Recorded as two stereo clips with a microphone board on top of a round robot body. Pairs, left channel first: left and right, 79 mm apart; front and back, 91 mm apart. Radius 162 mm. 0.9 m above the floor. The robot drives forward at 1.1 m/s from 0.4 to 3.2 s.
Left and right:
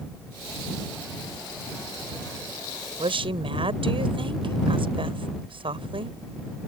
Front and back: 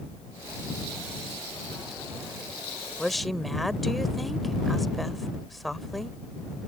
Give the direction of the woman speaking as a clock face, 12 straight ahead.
3 o'clock.